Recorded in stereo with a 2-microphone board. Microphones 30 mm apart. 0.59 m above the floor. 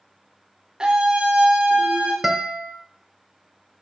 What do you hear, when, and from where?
0.8 s a scream: 30° right (ahead or behind), 1.3 m; by 2.1 s 50° right (ahead or behind), 1.8 m
2.2 s a guitar: 5° right (ahead or behind), 0.8 m